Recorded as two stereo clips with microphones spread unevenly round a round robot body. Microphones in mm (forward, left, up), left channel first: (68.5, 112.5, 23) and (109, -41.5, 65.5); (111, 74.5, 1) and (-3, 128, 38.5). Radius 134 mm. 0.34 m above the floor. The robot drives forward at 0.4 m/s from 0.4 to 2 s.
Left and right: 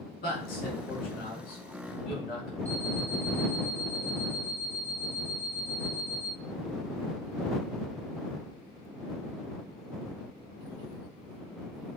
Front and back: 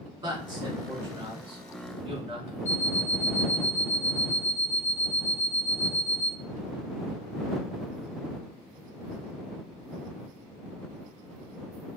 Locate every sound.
0.2 s a man speaking: 100° left, 3.5 m; by 2.5 s 110° left, 4 m
2.6 s an alarm clock: 75° left, 2.5 m